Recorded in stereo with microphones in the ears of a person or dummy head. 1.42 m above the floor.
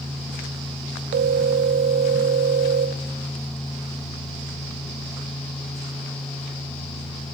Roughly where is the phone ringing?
Right.